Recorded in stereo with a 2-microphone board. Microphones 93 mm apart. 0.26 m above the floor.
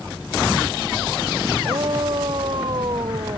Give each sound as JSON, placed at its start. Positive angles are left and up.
{"t": 1.6, "sound": "a shout", "side_deg": -55}